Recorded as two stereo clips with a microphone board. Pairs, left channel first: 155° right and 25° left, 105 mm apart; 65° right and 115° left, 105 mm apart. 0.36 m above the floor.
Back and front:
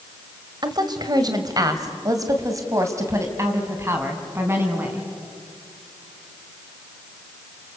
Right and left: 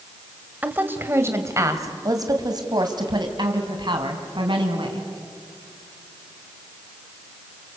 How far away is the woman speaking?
About 1.7 m.